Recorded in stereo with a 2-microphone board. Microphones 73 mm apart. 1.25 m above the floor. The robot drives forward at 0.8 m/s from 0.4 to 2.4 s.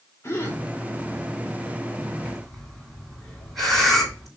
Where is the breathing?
5° left (ahead or behind), 5.5 m.